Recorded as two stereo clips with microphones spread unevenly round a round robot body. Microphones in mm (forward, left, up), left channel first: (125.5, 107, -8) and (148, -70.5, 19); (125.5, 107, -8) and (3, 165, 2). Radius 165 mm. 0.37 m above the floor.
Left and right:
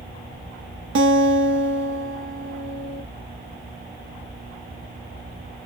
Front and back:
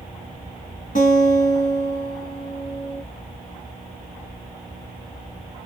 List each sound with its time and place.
0.9 s a guitar: 85° right, 1.0 m